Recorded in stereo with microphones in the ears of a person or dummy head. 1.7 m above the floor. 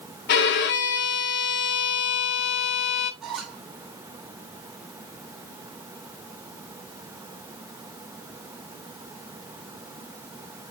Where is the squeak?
5° right (ahead or behind), 0.8 m.